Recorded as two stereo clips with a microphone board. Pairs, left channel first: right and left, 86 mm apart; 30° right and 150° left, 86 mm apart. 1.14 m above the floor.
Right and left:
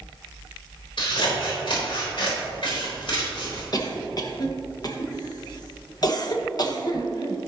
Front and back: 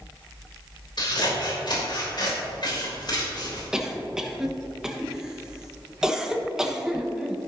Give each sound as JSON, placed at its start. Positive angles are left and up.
{"t": 1.0, "sound": "scissors", "azimuth_deg": -65, "distance_m": 3.5}
{"t": 3.7, "sound": "a cough", "azimuth_deg": -130, "distance_m": 1.3}